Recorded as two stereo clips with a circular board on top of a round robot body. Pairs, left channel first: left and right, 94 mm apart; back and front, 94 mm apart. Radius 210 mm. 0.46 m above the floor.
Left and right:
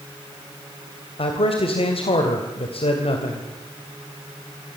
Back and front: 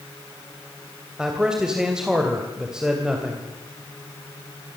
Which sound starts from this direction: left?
A man speaking, at 1.2 s.